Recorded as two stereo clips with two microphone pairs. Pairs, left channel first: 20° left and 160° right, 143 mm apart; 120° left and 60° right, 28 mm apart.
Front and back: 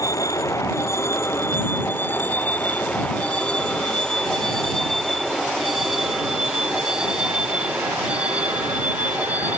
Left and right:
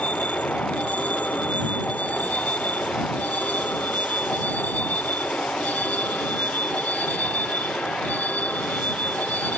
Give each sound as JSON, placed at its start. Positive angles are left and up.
{"t": 0.0, "sound": "a vehicle", "azimuth_deg": 85}